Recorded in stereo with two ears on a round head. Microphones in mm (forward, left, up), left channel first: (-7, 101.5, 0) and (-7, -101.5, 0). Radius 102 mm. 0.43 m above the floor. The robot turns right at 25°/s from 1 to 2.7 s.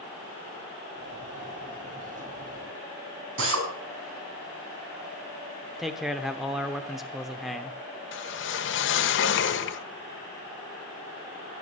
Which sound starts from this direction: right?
A drill, at 3.4 s.